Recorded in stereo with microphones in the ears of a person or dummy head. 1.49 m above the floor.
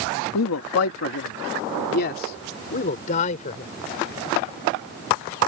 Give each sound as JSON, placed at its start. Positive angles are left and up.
{"t": 0.3, "sound": "a man speaking", "side_deg": 80}